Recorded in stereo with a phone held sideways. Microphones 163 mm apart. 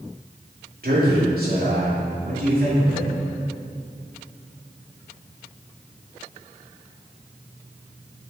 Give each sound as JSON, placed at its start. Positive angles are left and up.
{"t": 0.8, "sound": "a man speaking", "side_deg": -65, "distance_m": 2.0}